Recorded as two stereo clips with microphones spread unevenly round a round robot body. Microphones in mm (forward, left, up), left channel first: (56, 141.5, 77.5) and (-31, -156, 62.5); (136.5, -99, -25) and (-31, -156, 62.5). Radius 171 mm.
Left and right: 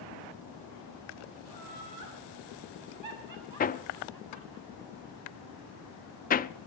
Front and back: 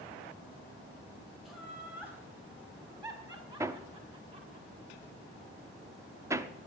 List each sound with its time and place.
1.4 s laughter: 65° right, 5.5 m; by 4.6 s 105° right, 6 m
3.6 s hammering: 75° left, 0.5 m